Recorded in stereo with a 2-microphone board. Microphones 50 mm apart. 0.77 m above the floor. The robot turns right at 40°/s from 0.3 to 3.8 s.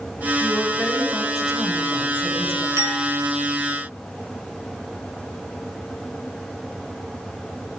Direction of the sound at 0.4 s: 145° left.